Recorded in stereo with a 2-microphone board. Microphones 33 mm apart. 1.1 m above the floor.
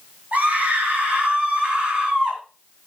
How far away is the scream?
About 8 m.